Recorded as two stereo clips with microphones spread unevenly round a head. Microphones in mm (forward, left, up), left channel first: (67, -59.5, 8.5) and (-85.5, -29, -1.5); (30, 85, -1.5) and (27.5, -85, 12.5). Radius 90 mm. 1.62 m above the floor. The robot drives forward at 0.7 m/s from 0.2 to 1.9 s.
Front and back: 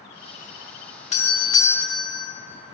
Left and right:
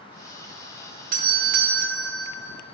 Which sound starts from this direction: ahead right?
A doorbell, at 1.1 s.